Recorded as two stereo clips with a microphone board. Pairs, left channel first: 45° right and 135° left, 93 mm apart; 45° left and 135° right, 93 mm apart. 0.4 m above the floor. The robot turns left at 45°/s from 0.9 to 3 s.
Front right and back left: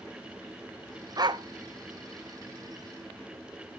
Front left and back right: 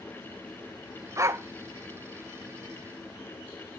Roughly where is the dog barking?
Behind.